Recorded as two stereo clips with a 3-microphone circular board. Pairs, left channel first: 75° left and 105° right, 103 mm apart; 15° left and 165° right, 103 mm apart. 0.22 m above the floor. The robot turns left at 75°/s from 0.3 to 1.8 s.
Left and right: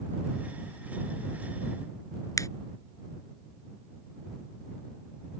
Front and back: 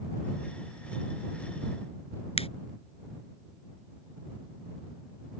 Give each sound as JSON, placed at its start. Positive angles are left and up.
{"t": 2.4, "sound": "a finger snap", "azimuth_deg": 20}